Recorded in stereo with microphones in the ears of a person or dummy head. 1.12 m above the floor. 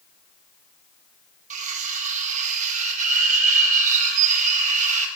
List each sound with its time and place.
1.5 s cutlery clinking: 40° right (ahead or behind), 1.9 m